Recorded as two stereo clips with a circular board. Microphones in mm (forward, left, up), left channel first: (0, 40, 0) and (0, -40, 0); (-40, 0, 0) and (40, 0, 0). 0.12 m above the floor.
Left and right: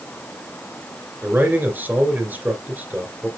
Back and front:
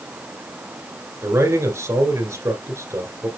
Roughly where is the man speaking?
Ahead right.